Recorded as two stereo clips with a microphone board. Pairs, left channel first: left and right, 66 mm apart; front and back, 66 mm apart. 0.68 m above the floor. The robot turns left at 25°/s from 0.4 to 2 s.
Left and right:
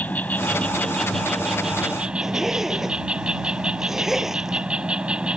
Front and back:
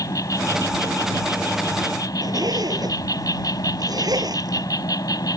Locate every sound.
0.0 s an insect: 25° left; by 5.4 s 15° right
2.2 s a zipper: 175° right